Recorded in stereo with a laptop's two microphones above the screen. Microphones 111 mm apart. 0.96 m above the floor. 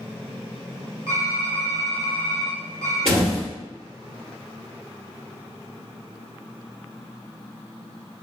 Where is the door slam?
70° right (ahead or behind), 1.5 m.